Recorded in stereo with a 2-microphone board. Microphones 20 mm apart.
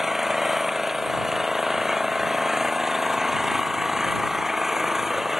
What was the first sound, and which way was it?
An engine running, 15° right (ahead or behind).